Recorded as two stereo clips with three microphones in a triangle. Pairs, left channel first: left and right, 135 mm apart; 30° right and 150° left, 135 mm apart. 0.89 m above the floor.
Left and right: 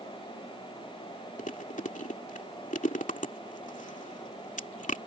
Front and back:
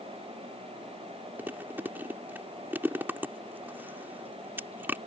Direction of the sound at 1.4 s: 75° left.